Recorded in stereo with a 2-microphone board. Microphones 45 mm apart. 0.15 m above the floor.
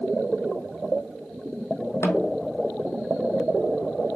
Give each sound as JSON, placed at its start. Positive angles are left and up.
{"t": 2.0, "sound": "a snare drum", "side_deg": 85, "distance_m": 0.7}